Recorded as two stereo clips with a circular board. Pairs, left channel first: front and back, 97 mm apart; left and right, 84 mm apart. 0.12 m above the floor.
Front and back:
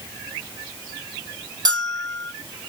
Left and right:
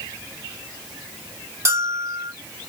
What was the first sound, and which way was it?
A bell, 140° right.